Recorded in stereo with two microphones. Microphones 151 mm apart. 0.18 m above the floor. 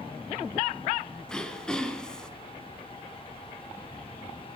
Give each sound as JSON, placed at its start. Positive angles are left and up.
{"t": 1.3, "sound": "throat clearing", "side_deg": 5, "distance_m": 1.3}